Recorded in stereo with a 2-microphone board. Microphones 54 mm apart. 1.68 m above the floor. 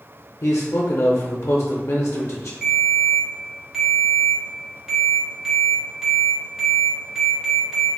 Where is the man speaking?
65° left (ahead or behind), 0.5 m.